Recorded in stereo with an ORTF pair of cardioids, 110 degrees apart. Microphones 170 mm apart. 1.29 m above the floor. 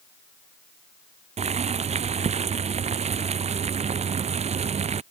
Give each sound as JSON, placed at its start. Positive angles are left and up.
{"t": 1.4, "sound": "boiling", "azimuth_deg": -40}